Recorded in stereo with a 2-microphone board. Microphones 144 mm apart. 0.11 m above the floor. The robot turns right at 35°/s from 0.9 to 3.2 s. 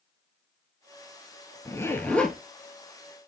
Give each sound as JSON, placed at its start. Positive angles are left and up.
{"t": 1.6, "sound": "a zipper", "side_deg": 25, "distance_m": 0.9}